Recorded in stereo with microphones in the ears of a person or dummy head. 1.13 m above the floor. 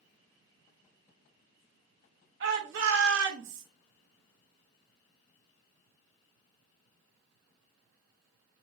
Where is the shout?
60° right (ahead or behind), 1.7 m.